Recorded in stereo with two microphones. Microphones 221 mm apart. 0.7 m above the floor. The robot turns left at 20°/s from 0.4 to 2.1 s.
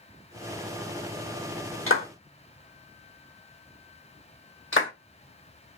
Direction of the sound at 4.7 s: 65° left (ahead or behind).